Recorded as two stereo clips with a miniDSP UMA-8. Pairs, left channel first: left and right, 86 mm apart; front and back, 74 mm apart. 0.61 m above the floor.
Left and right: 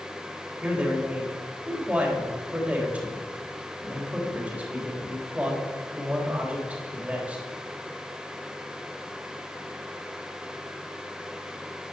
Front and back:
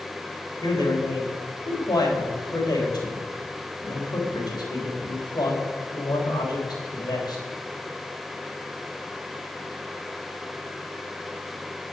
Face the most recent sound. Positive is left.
turn(degrees=-15)